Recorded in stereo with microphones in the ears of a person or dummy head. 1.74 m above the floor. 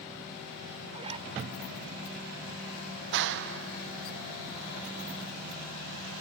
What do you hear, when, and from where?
0.9 s a zipper: 40° right (ahead or behind)
3.1 s a clap: 65° right (ahead or behind)